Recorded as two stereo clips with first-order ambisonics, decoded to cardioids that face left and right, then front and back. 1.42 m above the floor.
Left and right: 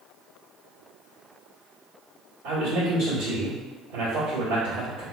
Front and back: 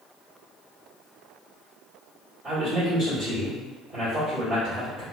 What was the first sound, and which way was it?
A man speaking, 110° right.